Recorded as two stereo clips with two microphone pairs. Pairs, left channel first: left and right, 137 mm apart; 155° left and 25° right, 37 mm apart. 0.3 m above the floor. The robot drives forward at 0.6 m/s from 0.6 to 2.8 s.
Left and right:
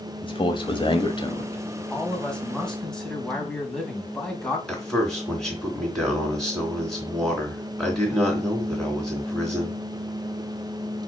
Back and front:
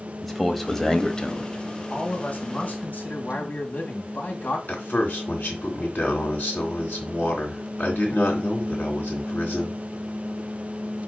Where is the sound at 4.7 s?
175° left, 3 m.